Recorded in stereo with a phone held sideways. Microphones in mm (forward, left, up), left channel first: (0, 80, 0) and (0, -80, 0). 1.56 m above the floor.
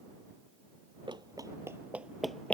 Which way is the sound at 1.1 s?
30° right (ahead or behind).